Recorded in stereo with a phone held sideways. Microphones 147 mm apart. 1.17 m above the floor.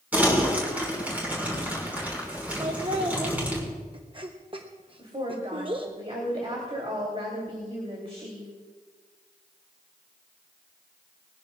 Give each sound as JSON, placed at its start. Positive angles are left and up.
{"t": 0.1, "sound": "crumpling", "side_deg": -10, "distance_m": 5.5}
{"t": 2.6, "sound": "laughter", "side_deg": -35, "distance_m": 0.9}
{"t": 5.0, "sound": "a woman speaking", "side_deg": -45, "distance_m": 3.0}